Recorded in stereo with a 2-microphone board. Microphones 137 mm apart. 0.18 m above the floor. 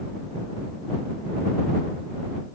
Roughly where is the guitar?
I don't hear a guitar.